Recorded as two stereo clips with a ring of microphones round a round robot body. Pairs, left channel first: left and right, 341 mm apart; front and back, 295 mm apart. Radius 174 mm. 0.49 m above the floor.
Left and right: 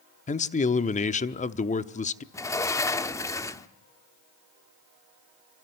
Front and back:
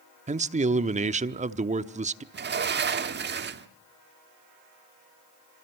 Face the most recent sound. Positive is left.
turn(degrees=165)